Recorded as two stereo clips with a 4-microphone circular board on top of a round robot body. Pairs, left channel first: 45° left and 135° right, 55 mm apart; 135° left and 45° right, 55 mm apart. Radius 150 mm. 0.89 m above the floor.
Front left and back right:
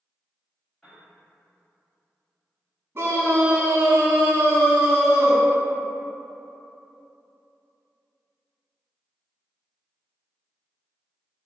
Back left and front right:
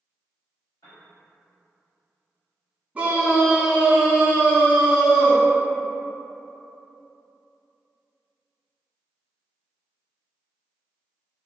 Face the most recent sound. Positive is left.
turn(degrees=-110)